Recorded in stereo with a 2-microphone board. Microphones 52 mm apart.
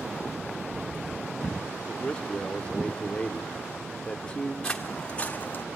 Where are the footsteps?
15° left (ahead or behind), 1.5 m; by 5.7 s 45° left (ahead or behind), 1.0 m.